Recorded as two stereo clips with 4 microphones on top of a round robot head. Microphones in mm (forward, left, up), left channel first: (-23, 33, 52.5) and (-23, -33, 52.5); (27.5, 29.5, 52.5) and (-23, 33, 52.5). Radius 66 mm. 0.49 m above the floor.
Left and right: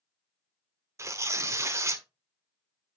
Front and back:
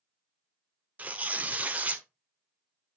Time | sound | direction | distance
1.0 | tearing paper | 125° right | 1.3 m